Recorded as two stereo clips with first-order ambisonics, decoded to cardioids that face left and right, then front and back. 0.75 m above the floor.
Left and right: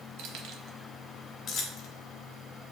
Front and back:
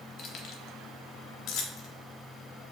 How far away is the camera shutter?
I don't hear a camera shutter.